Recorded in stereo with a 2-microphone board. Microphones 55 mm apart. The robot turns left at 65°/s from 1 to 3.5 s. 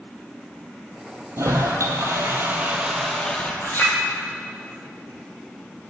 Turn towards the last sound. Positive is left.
turn(degrees=45)  # may be behind; listen again after turning